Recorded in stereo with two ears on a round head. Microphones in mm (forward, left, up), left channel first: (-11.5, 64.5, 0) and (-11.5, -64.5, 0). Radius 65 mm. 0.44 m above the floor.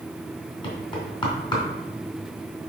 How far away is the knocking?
About 3 m.